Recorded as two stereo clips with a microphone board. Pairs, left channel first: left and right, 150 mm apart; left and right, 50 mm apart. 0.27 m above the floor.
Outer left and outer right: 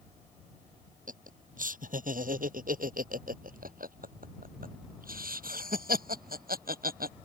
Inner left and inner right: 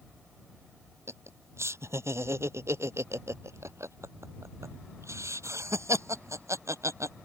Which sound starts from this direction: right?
Laughter, at 1.1 s.